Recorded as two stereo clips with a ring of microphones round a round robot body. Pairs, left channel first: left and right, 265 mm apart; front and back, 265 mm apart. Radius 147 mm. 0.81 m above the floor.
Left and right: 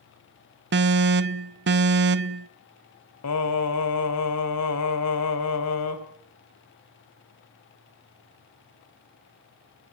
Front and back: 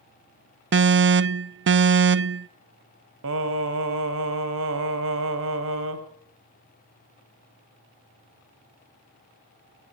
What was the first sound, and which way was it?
An alarm, 135° right.